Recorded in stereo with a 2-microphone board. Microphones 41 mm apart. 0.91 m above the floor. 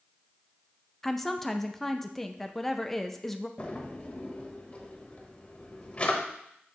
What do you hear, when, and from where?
1.0 s a woman speaking: 5° left (ahead or behind), 0.6 m
3.6 s a drawer: 30° left (ahead or behind), 1.1 m